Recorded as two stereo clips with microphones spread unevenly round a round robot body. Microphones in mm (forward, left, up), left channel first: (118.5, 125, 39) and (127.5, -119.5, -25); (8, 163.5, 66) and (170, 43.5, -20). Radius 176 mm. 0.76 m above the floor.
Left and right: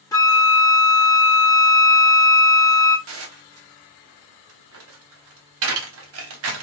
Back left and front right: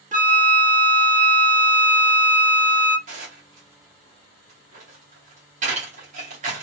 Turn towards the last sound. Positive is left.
turn(degrees=-85)